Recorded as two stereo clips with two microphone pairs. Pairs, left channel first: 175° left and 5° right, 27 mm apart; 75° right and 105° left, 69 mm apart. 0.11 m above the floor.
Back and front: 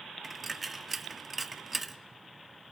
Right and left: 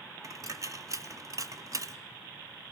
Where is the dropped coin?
80° left, 0.5 m.